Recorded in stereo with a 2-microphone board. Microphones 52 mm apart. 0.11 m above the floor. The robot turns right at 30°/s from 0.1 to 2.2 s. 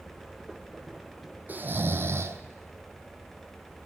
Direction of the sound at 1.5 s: 35° right (ahead or behind).